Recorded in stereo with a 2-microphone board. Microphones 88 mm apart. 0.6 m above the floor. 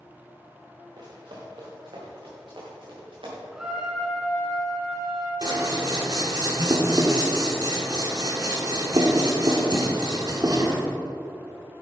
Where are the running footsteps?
60° right (ahead or behind), 3 m; by 3.4 s 80° right, 5.5 m.